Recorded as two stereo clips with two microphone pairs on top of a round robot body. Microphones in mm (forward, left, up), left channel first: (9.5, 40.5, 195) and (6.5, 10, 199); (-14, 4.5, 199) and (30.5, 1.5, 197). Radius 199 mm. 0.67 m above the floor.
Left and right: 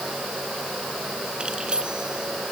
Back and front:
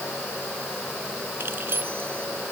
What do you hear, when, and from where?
1.4 s keys jangling: 35° right